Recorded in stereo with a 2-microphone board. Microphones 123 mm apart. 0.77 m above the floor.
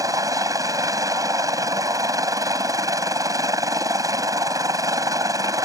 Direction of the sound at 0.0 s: 30° right (ahead or behind).